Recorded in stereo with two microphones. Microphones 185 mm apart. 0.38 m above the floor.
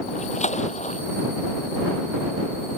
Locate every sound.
0.1 s a splash: 35° left (ahead or behind)